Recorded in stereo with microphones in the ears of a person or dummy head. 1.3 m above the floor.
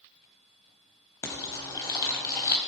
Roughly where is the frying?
Left.